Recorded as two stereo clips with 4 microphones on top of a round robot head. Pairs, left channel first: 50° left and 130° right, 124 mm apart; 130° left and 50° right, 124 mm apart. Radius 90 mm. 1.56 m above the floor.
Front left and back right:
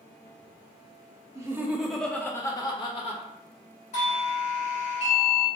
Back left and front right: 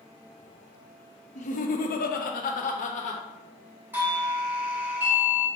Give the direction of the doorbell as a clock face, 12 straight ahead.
11 o'clock.